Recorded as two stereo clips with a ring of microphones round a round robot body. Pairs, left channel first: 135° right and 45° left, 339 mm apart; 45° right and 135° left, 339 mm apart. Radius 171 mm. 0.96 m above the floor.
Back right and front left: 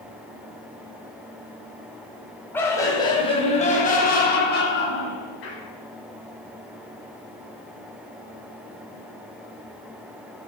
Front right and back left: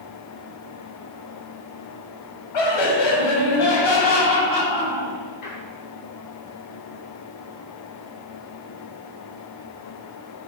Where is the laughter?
50° right, 5 m; by 5.6 s 85° right, 6.5 m.